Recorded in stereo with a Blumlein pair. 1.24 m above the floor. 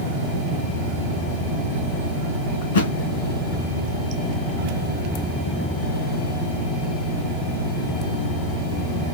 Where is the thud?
60° left, 3 m.